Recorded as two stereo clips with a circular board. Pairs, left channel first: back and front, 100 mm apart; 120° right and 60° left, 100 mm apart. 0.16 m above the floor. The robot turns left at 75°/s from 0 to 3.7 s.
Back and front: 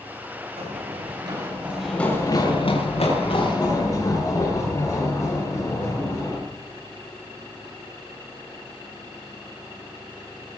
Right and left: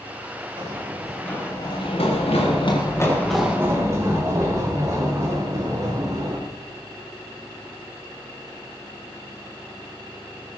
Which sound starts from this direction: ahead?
Running footsteps, at 0.6 s.